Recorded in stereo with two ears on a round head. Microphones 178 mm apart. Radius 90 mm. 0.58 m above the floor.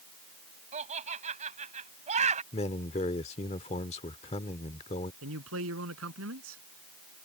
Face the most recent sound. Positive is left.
turn(degrees=-75)  # may be behind; listen again after turning